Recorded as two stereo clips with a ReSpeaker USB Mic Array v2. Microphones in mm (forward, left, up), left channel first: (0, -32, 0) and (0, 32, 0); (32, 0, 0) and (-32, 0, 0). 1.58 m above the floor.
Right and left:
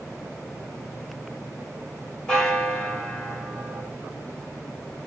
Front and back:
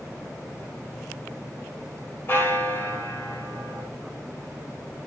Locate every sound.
2.3 s a bell: 20° right, 1.5 m